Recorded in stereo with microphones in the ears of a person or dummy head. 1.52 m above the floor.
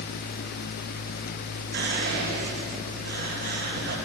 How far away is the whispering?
About 1.1 m.